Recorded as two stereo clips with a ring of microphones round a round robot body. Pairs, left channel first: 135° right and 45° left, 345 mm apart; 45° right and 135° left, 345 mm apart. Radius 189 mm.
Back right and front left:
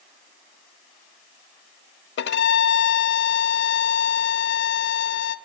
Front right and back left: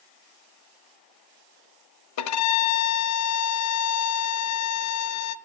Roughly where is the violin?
Right.